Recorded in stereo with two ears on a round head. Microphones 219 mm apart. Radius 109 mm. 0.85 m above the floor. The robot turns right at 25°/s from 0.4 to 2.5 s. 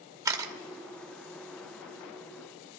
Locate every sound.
0.2 s a camera shutter: 15° right (ahead or behind), 1.0 m